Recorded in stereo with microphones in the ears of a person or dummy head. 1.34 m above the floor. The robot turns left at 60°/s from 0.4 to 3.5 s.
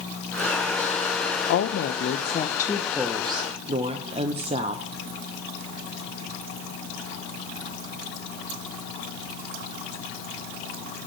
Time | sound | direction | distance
1.5 | a woman speaking | 95° left | 0.6 m